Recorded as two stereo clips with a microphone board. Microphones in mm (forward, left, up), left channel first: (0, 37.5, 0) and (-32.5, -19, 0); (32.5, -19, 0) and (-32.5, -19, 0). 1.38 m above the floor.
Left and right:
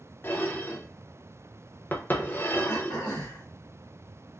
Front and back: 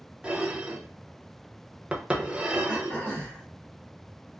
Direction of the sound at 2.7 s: 65° left.